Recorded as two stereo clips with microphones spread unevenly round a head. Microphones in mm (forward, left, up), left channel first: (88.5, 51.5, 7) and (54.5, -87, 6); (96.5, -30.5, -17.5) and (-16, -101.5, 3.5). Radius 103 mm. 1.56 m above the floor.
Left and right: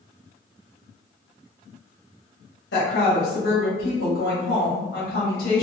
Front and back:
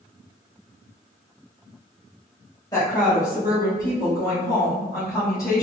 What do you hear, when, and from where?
2.7 s a woman speaking: 110° left, 1.8 m